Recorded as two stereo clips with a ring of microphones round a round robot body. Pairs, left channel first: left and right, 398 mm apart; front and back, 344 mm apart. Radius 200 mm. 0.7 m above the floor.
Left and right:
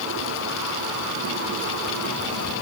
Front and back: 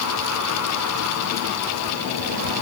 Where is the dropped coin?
I don't hear a dropped coin.